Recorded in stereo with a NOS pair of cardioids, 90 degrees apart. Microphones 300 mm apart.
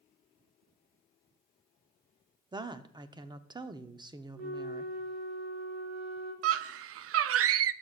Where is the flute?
65° right, 4.5 m.